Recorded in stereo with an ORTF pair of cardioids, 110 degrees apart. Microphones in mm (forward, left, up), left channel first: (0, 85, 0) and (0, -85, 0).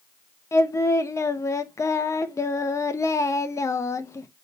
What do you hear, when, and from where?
0.5 s singing: 15° left, 1.0 m